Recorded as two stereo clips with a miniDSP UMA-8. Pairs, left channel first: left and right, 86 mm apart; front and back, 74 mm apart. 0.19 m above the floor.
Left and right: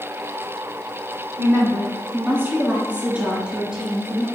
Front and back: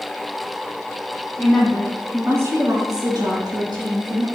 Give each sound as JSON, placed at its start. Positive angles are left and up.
{"t": 1.4, "sound": "a woman speaking", "azimuth_deg": -50, "distance_m": 1.3}